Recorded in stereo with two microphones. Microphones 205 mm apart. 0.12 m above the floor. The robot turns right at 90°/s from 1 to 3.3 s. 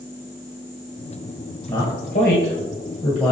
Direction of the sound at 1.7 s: 10° left (ahead or behind).